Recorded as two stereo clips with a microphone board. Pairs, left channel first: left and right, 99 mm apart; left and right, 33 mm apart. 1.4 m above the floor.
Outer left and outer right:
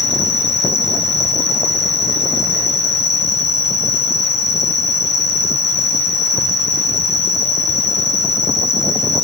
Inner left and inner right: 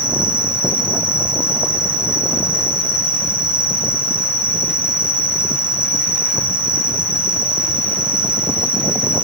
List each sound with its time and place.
0.0 s an insect: 35° right (ahead or behind), 0.7 m